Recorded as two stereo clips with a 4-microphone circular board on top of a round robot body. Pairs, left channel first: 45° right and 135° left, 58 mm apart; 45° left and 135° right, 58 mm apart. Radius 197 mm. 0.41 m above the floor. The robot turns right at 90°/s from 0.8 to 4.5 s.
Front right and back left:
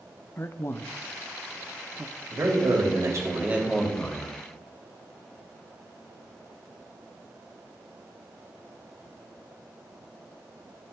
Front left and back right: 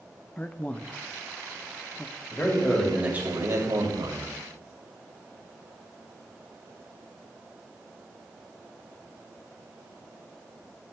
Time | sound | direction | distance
0.4 | a man speaking | 15° right | 0.9 m
2.3 | a man speaking | 85° left | 3 m